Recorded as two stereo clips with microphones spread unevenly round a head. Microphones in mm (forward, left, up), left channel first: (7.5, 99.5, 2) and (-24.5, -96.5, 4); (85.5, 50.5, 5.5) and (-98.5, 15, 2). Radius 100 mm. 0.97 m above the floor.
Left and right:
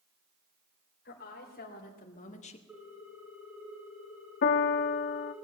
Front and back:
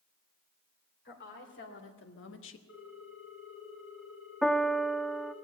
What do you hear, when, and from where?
1.1 s a woman speaking: 35° left, 3 m; by 2.6 s 20° left, 1.0 m
2.7 s a ringtone: 20° right, 4 m
4.4 s a piano: 100° left, 0.5 m